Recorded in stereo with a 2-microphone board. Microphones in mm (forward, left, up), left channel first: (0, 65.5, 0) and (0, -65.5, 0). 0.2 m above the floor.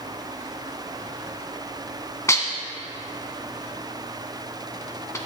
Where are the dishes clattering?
20° left (ahead or behind), 1.1 m.